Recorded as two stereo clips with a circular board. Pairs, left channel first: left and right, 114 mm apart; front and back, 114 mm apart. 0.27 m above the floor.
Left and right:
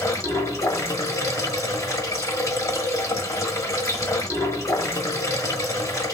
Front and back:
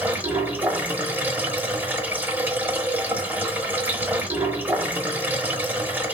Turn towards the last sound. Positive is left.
turn(degrees=120)